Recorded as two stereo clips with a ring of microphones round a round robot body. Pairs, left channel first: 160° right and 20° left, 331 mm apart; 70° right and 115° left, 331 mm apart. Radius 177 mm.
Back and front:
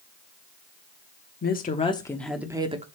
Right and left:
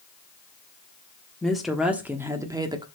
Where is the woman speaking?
155° right, 1.1 m; by 2.9 s 55° left, 1.0 m.